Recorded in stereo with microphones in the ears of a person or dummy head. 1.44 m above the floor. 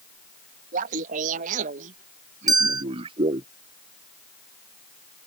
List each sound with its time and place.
0.7 s laughter: 50° right (ahead or behind); by 3.5 s 25° right (ahead or behind)
2.5 s a bell: 20° right (ahead or behind)